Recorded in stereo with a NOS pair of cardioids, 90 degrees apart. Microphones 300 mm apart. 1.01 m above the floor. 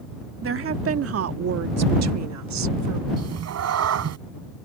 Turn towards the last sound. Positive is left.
turn(degrees=-60)